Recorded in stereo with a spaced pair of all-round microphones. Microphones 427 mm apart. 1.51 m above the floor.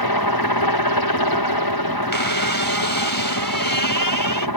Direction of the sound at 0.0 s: 60° left (ahead or behind).